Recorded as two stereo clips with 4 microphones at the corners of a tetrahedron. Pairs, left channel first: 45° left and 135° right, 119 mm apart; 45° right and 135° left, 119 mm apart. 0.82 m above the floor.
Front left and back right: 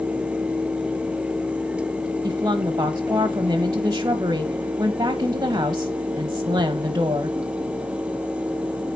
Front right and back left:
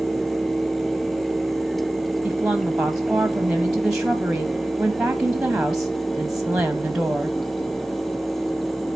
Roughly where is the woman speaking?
Behind right.